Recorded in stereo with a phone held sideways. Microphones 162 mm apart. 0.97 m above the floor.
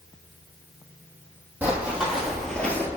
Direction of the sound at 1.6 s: 10° right (ahead or behind).